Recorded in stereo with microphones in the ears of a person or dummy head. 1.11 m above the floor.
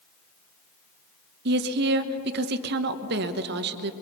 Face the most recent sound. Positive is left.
turn(degrees=-55)  # may be behind; listen again after turning